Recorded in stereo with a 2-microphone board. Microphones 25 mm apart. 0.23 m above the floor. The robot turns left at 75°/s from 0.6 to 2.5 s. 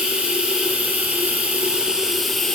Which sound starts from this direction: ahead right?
Running water, at 0.0 s.